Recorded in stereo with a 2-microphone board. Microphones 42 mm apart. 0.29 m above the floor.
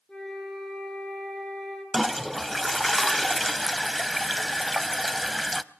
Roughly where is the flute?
Centre.